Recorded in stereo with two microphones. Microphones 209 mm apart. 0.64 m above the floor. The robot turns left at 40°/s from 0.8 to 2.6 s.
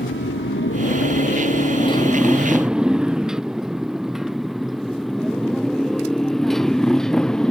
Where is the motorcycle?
65° left (ahead or behind); by 7.5 s 5° left (ahead or behind).